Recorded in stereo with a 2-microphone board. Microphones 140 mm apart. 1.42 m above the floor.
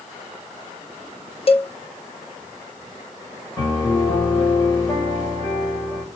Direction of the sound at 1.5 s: 45° left (ahead or behind).